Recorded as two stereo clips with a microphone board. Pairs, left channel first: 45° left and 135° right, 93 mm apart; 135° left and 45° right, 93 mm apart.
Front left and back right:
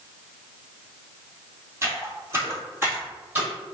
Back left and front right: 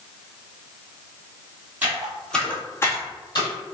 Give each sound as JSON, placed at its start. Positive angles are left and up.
{"t": 1.8, "sound": "footsteps", "azimuth_deg": -105, "distance_m": 1.7}